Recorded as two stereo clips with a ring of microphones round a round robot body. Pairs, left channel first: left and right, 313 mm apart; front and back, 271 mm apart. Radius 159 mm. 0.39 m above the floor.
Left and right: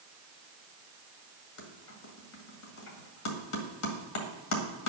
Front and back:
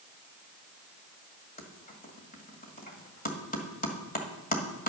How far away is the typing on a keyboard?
About 1.9 m.